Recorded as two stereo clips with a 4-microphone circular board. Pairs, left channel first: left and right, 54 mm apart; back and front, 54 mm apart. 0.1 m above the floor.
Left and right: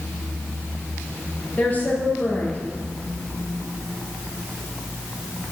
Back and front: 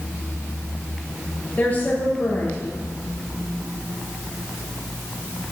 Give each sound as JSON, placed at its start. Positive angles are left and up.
{"t": 1.6, "sound": "a woman speaking", "azimuth_deg": 135, "distance_m": 2.5}